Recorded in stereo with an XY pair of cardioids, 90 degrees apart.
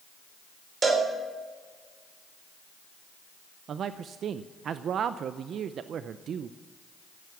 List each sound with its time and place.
0.8 s a cowbell: 40° right, 3.5 m
3.7 s a man speaking: 70° right, 0.6 m